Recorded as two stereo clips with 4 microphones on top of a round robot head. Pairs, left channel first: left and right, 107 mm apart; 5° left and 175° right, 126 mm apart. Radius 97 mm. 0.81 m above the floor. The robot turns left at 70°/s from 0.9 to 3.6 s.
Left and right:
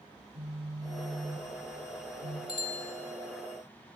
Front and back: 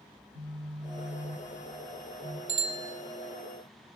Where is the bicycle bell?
150° left, 2.5 m; by 2.9 s 120° left, 2.5 m.